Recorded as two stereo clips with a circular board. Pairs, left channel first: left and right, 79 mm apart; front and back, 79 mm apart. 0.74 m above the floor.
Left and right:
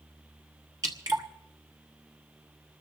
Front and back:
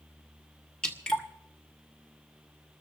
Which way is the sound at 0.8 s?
75° right.